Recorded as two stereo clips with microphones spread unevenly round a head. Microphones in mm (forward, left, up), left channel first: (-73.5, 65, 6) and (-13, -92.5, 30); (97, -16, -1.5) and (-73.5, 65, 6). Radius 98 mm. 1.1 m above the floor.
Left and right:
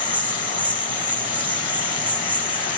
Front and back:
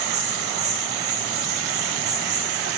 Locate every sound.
0.0 s an insect: 150° right, 7 m